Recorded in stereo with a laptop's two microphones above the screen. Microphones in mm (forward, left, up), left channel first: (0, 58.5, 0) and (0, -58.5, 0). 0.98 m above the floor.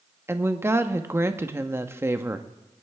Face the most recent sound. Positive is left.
turn(degrees=-20)  # may be behind; listen again after turning